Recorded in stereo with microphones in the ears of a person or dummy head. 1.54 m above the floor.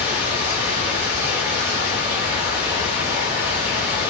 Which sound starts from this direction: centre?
Running water, at 0.0 s.